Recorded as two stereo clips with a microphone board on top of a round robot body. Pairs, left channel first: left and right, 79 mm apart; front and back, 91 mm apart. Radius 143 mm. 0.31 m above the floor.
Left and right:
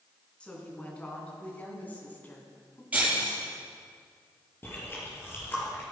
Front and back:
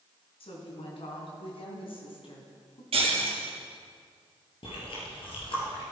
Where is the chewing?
25° left, 4.5 m.